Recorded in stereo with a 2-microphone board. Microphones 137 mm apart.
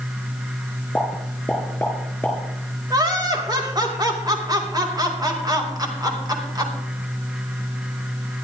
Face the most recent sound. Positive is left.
turn(degrees=-30)  # may be behind; listen again after turning